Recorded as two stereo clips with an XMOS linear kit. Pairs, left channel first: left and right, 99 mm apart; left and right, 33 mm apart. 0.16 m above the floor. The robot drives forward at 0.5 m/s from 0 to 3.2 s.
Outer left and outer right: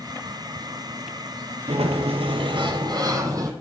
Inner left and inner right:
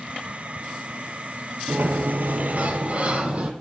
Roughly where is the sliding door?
Right.